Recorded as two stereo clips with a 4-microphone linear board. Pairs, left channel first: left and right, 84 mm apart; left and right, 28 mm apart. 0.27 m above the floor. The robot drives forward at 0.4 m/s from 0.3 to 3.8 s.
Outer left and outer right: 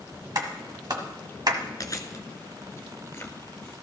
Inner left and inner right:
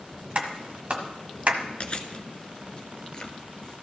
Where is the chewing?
45° left (ahead or behind), 1.0 m; by 3.7 s 25° left (ahead or behind), 1.6 m.